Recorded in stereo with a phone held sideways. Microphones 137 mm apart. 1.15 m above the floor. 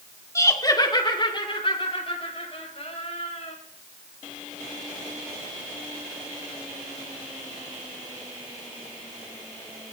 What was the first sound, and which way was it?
Laughter, 20° left (ahead or behind).